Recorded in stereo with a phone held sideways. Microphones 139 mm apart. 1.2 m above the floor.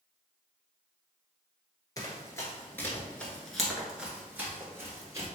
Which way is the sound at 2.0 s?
25° left (ahead or behind).